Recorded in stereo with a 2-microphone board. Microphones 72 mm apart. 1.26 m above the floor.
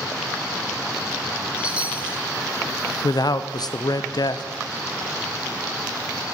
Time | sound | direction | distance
1.6 | a chime | 15° right (ahead or behind) | 0.6 m
3.0 | a man speaking | 65° left (ahead or behind) | 0.5 m